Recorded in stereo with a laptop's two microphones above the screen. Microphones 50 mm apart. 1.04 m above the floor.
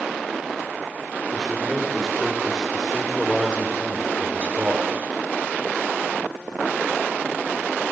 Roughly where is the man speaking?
Centre.